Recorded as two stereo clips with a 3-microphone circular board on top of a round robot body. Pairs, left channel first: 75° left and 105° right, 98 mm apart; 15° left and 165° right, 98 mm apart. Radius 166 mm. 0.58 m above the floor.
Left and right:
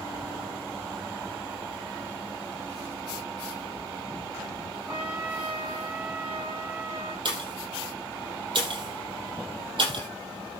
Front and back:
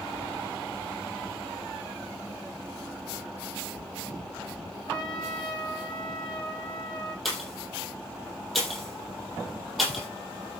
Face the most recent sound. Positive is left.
turn(degrees=-75)